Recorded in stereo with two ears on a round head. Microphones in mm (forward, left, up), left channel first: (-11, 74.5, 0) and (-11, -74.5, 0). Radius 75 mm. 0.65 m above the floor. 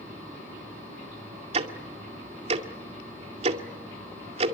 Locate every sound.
1.5 s ticking: 40° right (ahead or behind), 2 m